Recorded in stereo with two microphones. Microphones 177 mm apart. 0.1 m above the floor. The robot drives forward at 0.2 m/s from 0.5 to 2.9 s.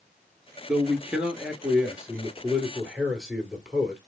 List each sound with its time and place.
0.7 s a man speaking: 5° right (ahead or behind), 1.3 m